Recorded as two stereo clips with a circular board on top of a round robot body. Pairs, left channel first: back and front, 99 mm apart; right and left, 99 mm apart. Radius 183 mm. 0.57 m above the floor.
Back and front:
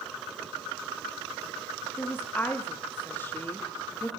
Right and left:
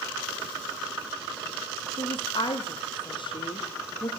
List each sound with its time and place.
2.0 s a woman speaking: 110° right, 0.9 m